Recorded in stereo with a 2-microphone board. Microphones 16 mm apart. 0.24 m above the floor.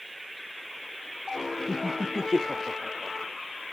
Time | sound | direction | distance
1.7 | laughter | 40° right (ahead or behind) | ?